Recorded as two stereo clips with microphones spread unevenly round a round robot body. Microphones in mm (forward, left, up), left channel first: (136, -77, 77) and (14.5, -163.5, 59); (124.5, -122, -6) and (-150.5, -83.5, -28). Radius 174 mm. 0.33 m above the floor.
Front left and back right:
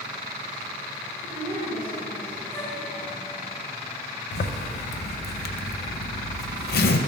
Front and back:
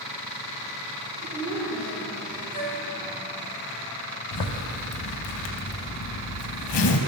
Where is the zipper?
25° left, 0.6 m.